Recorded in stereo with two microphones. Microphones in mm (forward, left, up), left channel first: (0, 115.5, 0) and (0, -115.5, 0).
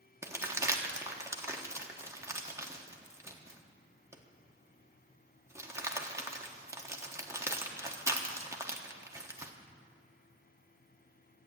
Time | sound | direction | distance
0.2 | crumpling | 10° right (ahead or behind) | 1.2 m